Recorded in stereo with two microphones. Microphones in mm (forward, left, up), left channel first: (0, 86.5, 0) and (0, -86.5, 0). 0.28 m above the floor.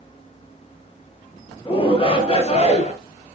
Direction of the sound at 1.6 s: 25° left (ahead or behind).